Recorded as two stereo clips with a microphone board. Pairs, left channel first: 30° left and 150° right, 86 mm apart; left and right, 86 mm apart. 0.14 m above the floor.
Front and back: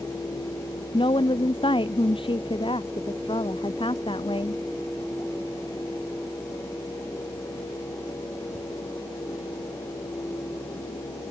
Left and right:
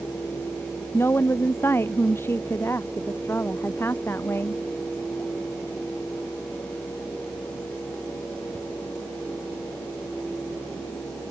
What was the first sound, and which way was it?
A woman speaking, 30° left.